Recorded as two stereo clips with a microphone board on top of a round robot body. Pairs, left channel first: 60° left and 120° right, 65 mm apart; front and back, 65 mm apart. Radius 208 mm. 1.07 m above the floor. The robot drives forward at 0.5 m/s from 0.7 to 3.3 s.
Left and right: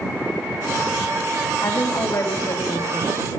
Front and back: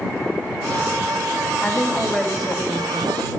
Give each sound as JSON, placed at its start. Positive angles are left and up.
{"t": 1.6, "sound": "a woman speaking", "azimuth_deg": 85, "distance_m": 3.0}